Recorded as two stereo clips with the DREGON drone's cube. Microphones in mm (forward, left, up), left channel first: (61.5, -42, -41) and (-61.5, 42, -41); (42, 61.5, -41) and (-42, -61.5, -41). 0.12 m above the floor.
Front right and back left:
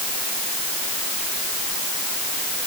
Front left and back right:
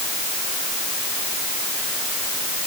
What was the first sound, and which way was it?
Only background noise.